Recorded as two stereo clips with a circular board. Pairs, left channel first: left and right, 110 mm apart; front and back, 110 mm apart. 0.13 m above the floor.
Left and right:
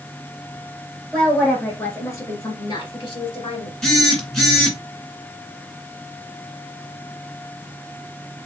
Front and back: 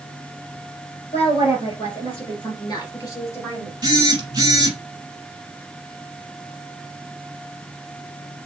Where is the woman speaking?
Straight ahead, 2.5 m; by 3.7 s 75° left, 2 m.